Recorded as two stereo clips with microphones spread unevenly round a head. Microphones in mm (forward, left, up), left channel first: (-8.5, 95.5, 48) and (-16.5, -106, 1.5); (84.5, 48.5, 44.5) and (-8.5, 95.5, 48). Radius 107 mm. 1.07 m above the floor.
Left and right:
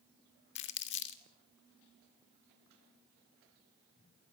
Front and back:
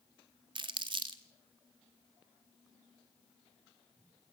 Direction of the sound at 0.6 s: 120° left.